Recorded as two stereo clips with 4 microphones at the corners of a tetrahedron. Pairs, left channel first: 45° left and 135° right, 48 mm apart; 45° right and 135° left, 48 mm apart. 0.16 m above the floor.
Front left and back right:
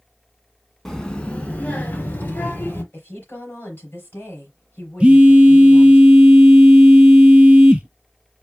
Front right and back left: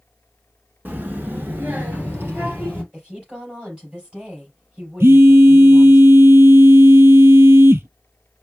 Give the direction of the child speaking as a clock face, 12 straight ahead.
8 o'clock.